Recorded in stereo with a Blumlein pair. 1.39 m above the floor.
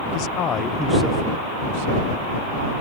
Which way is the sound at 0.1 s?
45° left.